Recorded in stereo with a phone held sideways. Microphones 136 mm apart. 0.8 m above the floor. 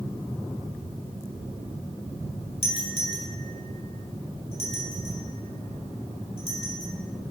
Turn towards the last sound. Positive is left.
turn(degrees=50)  # may be behind; listen again after turning